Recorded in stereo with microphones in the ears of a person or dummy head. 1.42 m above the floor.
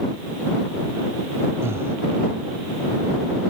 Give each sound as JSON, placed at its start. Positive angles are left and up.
{"t": 1.6, "sound": "breathing", "side_deg": -15}